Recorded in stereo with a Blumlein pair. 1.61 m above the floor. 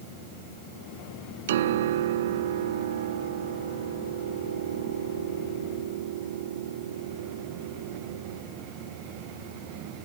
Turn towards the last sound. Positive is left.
turn(degrees=-60)